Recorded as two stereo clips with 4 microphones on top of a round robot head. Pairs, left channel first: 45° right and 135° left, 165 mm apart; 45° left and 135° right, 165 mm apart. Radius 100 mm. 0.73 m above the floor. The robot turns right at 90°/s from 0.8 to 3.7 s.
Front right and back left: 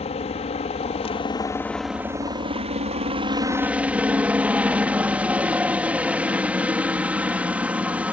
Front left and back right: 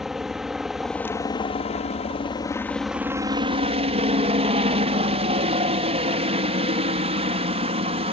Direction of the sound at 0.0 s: 50° right.